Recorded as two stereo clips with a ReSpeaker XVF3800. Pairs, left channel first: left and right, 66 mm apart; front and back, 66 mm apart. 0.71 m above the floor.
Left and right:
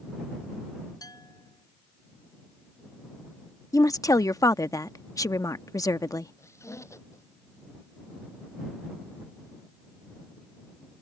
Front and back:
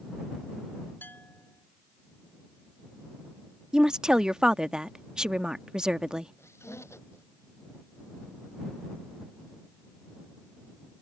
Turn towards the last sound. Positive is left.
turn(degrees=45)